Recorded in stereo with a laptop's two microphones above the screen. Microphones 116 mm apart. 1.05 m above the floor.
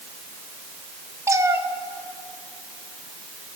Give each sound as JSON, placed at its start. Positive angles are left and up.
{"t": 1.3, "sound": "a cat meowing", "side_deg": -25, "distance_m": 1.0}